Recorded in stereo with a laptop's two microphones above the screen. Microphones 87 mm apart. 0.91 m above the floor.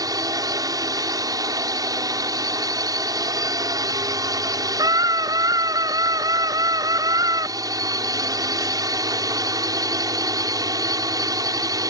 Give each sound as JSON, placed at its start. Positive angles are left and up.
{"t": 0.0, "sound": "a drone", "side_deg": -45}
{"t": 4.8, "sound": "a scream", "side_deg": -45}